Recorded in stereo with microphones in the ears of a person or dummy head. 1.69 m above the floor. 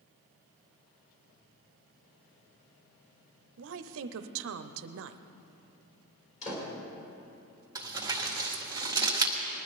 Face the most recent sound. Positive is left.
turn(degrees=-20)  # may be behind; listen again after turning